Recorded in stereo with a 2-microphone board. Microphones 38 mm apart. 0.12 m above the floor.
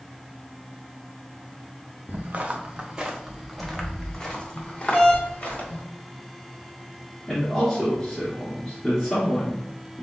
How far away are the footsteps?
About 1.3 m.